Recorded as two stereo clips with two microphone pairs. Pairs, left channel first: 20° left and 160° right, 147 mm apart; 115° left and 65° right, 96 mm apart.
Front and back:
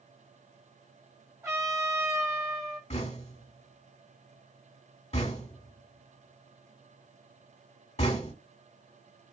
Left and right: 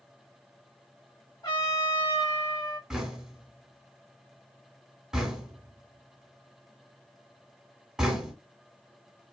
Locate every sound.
1.4 s a trumpet: 135° left, 2.5 m
2.9 s knocking: 15° left, 1.1 m